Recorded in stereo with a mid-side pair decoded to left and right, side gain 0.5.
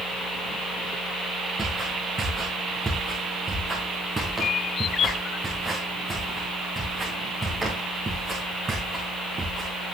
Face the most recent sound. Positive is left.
turn(degrees=-15)